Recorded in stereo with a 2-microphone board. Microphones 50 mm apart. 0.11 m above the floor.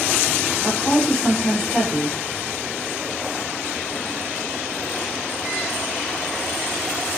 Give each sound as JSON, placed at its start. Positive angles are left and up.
{"t": 0.6, "sound": "a woman speaking", "side_deg": 20, "distance_m": 4.0}